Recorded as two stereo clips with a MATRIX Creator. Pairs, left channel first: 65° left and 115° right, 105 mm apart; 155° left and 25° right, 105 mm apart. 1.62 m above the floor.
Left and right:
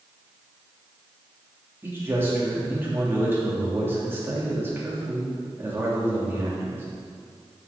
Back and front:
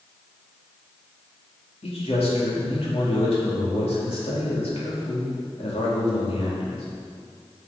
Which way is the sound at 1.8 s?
Straight behind.